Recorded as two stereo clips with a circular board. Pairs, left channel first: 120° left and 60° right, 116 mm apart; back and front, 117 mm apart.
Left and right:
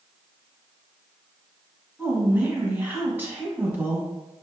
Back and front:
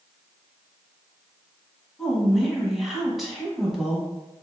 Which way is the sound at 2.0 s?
85° right.